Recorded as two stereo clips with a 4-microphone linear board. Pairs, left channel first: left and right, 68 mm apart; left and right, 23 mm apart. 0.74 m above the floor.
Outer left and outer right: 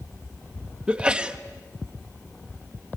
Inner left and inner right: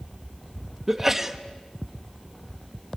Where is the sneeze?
15° right (ahead or behind), 1.0 m.